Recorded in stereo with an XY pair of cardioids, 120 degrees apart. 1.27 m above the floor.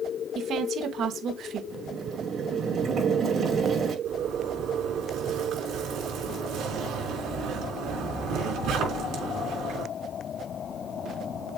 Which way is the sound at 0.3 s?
55° right.